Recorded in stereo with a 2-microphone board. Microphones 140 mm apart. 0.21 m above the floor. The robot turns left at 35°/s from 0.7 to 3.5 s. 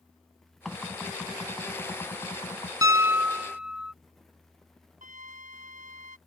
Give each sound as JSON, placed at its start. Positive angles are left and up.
{"t": 0.7, "sound": "knocking", "azimuth_deg": 180}
{"t": 2.8, "sound": "a piano", "side_deg": -25}
{"t": 5.0, "sound": "a flute", "side_deg": -65}